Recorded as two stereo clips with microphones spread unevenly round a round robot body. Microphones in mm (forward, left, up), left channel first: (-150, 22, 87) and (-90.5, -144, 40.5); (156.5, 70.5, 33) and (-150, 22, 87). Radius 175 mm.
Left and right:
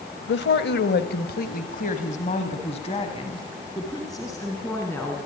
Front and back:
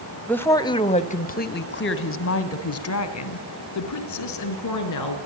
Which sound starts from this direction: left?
A woman speaking, at 0.3 s.